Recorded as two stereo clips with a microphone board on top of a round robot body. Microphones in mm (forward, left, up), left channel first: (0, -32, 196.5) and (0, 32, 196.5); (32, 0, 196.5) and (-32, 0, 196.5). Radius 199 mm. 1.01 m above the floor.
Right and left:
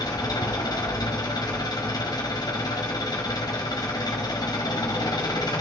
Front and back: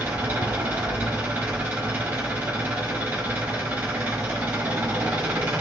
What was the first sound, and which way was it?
An engine running, 105° right.